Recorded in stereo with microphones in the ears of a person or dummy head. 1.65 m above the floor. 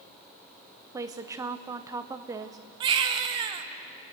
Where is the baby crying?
25° right (ahead or behind), 0.7 m.